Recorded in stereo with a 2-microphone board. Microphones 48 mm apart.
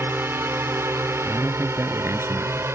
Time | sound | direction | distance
0.0 | a drone | 55° right (ahead or behind) | ?
1.2 | a man speaking | 70° right (ahead or behind) | ?